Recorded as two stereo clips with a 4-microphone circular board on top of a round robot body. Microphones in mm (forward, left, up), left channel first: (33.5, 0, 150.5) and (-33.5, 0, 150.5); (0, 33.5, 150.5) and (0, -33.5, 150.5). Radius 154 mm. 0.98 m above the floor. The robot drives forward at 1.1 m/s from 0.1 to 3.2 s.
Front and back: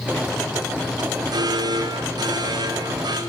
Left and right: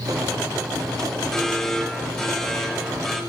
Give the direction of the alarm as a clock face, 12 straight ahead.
6 o'clock.